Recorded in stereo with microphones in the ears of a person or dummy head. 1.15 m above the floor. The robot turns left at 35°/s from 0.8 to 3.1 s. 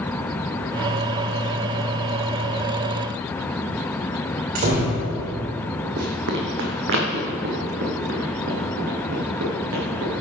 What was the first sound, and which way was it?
A door slam, 50° right (ahead or behind).